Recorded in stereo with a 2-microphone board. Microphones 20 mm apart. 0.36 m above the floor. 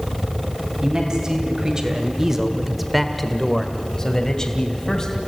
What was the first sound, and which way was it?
A man speaking, 35° right (ahead or behind).